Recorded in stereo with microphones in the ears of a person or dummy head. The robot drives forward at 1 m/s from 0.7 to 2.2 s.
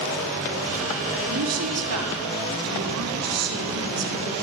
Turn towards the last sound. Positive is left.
turn(degrees=-80)